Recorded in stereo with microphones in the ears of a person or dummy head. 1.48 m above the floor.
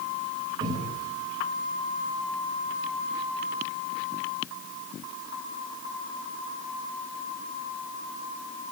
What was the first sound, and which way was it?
A cupboard door, 20° right (ahead or behind).